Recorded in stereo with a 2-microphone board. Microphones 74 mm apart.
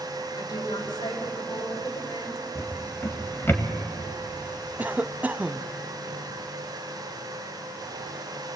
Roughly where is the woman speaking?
Left.